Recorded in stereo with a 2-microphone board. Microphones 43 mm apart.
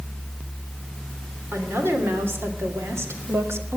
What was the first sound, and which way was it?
A woman speaking, 65° right (ahead or behind).